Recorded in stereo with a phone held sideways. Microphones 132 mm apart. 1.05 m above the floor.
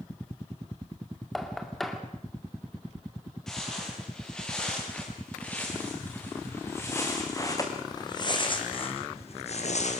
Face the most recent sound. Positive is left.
turn(degrees=65)  # may be behind; listen again after turning